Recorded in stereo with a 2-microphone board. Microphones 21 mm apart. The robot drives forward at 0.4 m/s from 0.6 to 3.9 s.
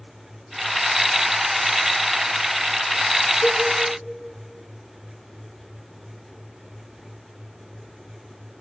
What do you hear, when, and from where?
3.4 s a cowbell: 60° left (ahead or behind), 3.5 m